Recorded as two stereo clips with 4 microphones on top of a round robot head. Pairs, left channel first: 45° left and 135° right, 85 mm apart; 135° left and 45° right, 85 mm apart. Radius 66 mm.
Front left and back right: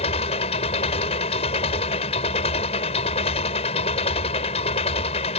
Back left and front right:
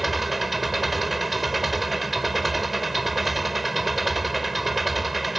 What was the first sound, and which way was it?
An engine running, 45° left.